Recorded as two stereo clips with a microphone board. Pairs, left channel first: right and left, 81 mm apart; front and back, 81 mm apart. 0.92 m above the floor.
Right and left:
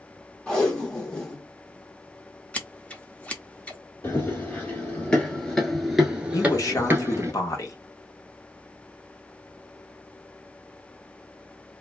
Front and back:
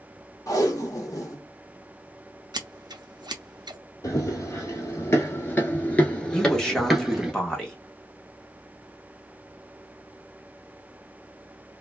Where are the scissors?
160° right, 0.6 m.